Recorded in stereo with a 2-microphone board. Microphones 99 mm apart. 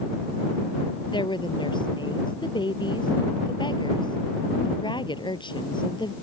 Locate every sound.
1.1 s a woman speaking: 50° left (ahead or behind)